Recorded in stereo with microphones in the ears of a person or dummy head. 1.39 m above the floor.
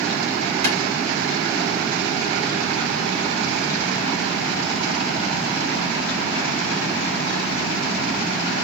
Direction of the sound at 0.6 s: 70° right (ahead or behind).